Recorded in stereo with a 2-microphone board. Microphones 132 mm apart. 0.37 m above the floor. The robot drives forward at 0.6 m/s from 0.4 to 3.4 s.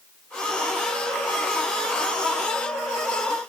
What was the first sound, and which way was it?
Only background noise.